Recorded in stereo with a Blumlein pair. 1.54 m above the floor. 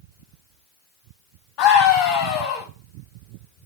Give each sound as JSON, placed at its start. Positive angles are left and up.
{"t": 1.6, "sound": "a scream", "azimuth_deg": 40, "distance_m": 1.1}